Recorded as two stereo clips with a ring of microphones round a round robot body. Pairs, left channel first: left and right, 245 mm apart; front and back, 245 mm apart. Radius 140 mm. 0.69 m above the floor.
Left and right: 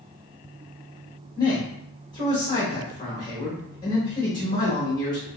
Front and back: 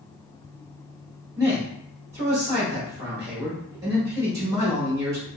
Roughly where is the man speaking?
Behind left.